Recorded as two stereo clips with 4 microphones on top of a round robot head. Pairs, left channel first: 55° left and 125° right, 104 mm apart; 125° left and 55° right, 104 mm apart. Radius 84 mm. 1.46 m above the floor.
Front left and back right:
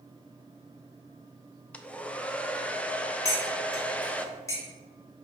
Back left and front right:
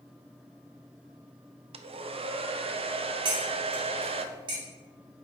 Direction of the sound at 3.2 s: 10° right.